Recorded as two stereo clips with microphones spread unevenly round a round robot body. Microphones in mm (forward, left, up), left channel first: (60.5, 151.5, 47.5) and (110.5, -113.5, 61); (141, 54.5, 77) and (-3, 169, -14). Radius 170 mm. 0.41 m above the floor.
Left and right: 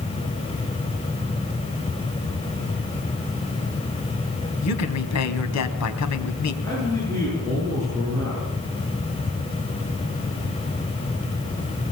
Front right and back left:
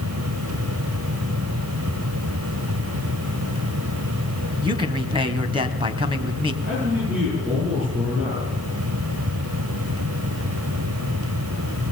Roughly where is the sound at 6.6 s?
Behind.